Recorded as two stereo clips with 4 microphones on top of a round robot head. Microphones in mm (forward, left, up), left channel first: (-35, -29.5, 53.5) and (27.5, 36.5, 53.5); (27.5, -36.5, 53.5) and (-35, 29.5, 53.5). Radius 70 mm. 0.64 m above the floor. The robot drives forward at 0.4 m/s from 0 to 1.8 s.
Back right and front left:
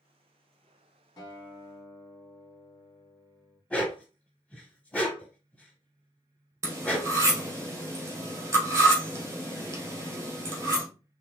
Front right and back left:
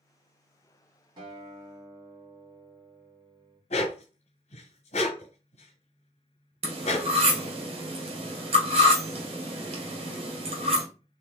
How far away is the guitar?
About 1.0 m.